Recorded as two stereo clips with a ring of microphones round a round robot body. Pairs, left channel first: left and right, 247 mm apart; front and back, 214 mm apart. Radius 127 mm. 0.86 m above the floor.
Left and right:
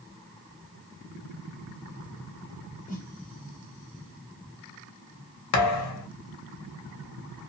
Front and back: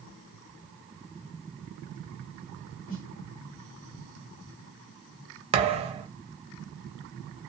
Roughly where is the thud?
Behind left.